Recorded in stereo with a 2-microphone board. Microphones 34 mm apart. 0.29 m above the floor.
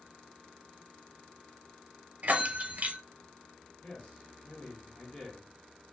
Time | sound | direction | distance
2.2 | a bell | 55° right (ahead or behind) | 0.5 m
3.8 | a man speaking | 40° left (ahead or behind) | 1.6 m